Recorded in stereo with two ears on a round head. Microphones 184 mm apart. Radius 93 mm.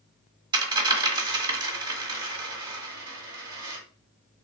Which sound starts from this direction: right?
A dropped coin, at 0.5 s.